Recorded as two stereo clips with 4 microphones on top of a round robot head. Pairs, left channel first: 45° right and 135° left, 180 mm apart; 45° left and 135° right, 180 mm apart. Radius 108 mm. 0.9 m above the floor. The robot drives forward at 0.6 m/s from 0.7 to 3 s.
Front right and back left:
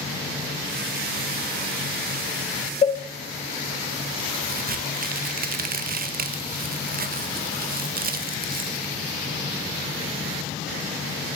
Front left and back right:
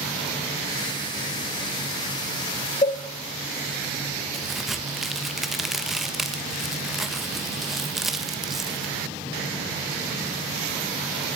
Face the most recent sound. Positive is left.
turn(degrees=135)